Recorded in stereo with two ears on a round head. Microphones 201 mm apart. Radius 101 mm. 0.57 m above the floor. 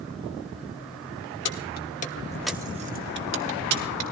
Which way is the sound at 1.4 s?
55° left (ahead or behind).